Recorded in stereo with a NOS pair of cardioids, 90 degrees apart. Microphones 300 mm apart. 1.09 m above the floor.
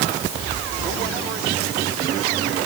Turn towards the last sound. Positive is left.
No sound to turn to.